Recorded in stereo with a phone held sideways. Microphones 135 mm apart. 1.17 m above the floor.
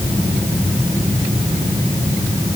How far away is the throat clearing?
No throat clearing in this recording.